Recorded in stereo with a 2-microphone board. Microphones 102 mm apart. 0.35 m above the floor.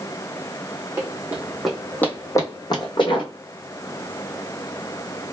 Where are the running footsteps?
25° right (ahead or behind), 0.8 m; by 3.3 s 55° left (ahead or behind), 1.1 m.